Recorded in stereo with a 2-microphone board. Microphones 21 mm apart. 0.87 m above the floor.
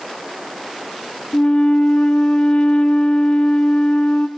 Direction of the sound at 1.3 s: 70° left (ahead or behind).